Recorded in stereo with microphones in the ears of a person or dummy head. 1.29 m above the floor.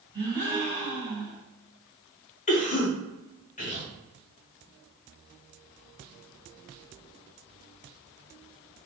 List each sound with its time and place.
0.1 s a gasp: 20° right (ahead or behind), 1.5 m
2.5 s a cough: 40° left (ahead or behind), 1.0 m